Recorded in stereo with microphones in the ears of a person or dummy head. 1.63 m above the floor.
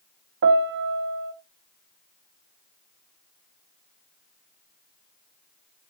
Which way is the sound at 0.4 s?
45° right (ahead or behind).